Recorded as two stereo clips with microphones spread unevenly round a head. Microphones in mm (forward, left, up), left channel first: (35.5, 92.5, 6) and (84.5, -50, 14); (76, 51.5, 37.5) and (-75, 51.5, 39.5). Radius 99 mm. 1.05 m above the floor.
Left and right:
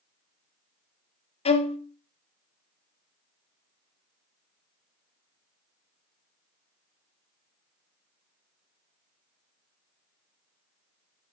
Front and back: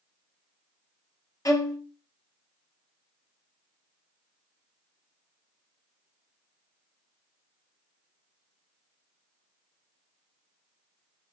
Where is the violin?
65° left, 0.9 m.